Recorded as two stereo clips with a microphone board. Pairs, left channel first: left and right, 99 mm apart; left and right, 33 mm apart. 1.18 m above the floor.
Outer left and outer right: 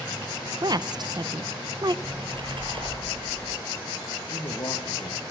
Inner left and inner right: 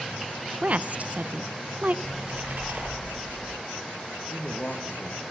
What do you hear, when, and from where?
0.6 s a woman speaking: 45° right (ahead or behind), 0.6 m
2.0 s a splash: 60° right (ahead or behind), 6.5 m
4.3 s a man speaking: 45° left (ahead or behind), 2.0 m